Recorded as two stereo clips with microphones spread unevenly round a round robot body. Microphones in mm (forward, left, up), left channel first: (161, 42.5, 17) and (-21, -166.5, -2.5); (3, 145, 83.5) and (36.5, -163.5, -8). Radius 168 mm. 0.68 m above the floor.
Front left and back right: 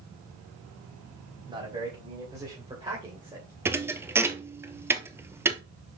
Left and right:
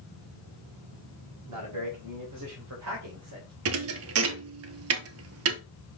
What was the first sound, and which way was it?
A man speaking, 60° right.